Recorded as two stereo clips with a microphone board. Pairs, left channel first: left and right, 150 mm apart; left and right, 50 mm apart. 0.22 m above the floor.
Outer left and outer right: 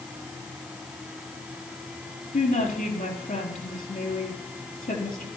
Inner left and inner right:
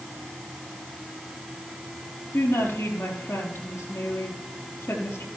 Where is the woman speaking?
70° left (ahead or behind), 5 m.